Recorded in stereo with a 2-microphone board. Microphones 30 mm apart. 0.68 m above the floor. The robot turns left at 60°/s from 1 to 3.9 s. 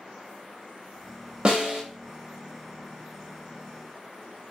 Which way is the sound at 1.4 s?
35° right (ahead or behind).